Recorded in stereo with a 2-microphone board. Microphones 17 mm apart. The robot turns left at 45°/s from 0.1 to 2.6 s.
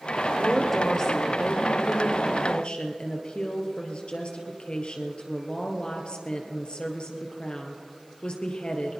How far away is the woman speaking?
About 2.5 m.